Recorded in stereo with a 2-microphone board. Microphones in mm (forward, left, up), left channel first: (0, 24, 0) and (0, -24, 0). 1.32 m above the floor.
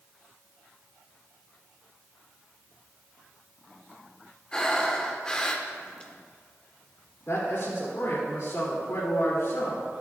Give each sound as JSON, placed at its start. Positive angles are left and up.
{"t": 4.5, "sound": "breathing", "side_deg": 20, "distance_m": 1.2}
{"t": 7.3, "sound": "a man speaking", "side_deg": 70, "distance_m": 2.5}